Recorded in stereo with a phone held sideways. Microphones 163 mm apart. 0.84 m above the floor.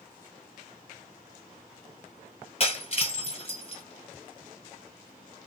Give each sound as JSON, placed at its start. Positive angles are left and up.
{"t": 2.6, "sound": "breaking glass", "side_deg": 40, "distance_m": 1.6}